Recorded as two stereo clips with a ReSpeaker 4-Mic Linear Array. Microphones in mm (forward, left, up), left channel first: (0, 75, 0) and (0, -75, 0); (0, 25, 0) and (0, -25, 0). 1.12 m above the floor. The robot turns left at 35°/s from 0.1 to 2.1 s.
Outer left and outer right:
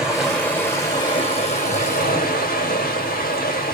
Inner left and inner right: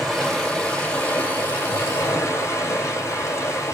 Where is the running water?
175° right, 2.5 m; by 3.8 s 115° left, 2.5 m.